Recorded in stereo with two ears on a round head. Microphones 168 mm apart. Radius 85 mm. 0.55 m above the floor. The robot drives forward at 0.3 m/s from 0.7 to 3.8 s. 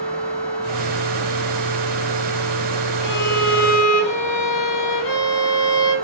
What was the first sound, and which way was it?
A violin, 70° left (ahead or behind).